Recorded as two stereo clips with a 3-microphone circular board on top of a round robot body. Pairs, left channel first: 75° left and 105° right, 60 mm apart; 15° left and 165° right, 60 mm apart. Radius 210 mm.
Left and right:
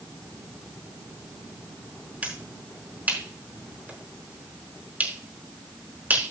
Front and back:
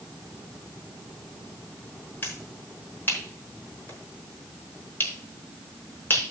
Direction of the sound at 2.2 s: 40° right.